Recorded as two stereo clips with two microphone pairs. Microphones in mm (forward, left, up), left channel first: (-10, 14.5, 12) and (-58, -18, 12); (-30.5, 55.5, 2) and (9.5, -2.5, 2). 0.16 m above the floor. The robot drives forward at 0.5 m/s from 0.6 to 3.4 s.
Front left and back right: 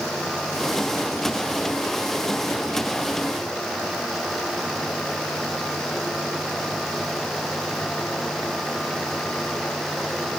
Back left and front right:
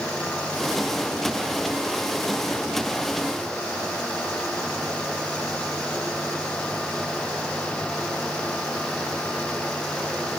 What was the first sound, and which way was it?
Only background noise.